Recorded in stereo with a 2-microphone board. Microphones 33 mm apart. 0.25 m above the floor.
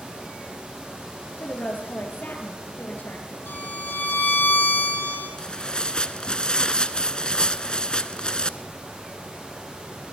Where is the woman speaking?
65° left (ahead or behind), 5 m.